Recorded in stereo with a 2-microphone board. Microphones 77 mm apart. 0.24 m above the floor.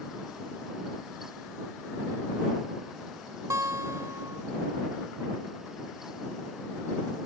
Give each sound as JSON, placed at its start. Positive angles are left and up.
{"t": 3.5, "sound": "a guitar", "side_deg": -40}